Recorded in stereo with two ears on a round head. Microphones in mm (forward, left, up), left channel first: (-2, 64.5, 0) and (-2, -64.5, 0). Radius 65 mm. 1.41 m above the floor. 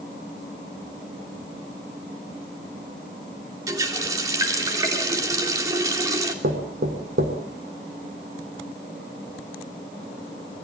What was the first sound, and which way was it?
A running tap, 25° right (ahead or behind).